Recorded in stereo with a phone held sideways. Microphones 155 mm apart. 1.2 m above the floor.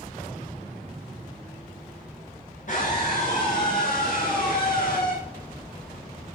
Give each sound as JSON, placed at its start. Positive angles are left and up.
{"t": 2.7, "sound": "a scream", "side_deg": 60, "distance_m": 7.0}